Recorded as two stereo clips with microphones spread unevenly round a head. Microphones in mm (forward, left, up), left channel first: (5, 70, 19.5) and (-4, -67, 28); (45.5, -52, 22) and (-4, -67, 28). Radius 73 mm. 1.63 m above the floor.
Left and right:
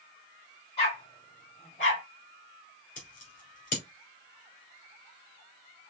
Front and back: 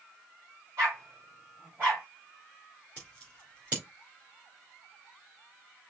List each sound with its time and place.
0.8 s a dog barking: 135° left, 3 m; by 2.0 s 125° left, 2.5 m
3.0 s scissors: 120° left, 2.5 m